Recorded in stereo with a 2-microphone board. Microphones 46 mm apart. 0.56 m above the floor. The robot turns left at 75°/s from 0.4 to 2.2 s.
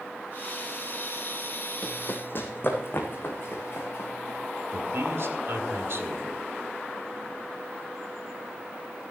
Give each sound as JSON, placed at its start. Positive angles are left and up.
{"t": 1.8, "sound": "running footsteps", "side_deg": 20, "distance_m": 1.3}
{"t": 4.7, "sound": "a man speaking", "side_deg": -55, "distance_m": 2.0}